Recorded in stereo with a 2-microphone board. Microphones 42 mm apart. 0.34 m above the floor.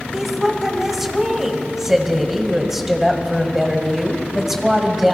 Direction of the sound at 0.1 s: 5° right (ahead or behind).